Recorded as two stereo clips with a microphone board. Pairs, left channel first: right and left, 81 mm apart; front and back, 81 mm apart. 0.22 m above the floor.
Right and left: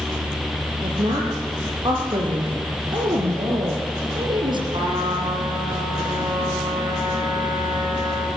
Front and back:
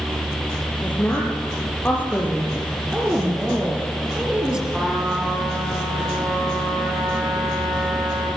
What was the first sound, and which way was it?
A woman speaking, 70° left.